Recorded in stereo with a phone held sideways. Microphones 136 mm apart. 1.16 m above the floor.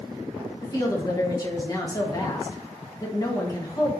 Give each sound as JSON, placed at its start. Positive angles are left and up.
{"t": 0.6, "sound": "a woman speaking", "side_deg": 30, "distance_m": 1.4}